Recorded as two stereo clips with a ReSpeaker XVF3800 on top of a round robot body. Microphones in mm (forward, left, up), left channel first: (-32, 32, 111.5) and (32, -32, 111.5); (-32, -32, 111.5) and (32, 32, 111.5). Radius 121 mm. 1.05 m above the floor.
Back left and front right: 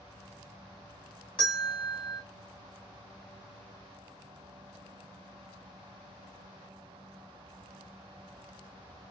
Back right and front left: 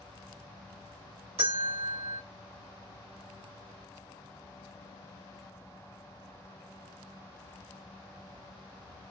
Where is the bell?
55° left, 1.8 m.